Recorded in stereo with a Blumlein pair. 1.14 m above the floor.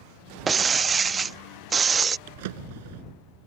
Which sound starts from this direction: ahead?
Breaking glass, at 0.5 s.